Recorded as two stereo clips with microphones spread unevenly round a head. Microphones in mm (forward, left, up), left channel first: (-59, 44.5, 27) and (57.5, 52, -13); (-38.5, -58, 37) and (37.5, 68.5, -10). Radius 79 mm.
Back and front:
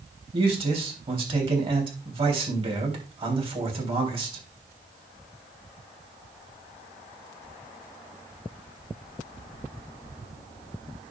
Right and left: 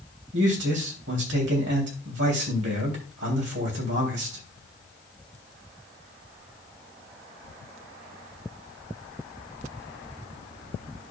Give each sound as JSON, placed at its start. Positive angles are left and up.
{"t": 0.3, "sound": "a man speaking", "azimuth_deg": 50, "distance_m": 3.5}